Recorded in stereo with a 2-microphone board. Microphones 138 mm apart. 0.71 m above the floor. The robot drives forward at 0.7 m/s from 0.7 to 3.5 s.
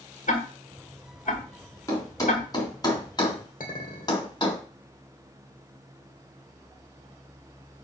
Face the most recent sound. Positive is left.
turn(degrees=75)  # may be behind; listen again after turning